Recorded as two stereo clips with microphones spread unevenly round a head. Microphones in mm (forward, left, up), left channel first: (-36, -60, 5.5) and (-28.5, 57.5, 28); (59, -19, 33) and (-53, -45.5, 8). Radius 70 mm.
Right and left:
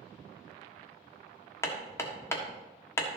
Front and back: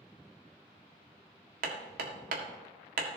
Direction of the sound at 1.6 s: 165° right.